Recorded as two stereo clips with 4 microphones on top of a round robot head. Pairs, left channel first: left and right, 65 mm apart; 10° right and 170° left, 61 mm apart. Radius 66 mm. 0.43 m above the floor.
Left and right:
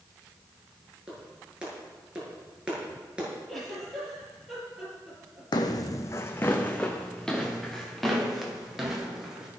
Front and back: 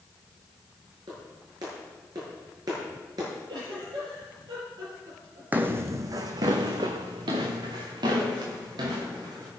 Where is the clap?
165° right, 7 m.